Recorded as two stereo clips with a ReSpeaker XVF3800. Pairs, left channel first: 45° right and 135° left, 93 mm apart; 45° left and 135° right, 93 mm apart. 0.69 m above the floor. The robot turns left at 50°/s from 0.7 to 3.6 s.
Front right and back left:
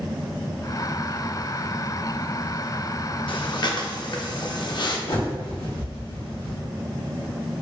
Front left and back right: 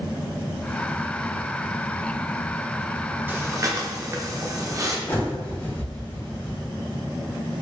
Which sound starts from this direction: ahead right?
Breathing, at 3.3 s.